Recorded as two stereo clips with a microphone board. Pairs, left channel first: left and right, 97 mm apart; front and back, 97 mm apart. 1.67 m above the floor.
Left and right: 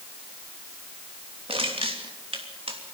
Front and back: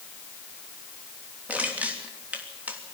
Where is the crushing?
105° right, 3 m.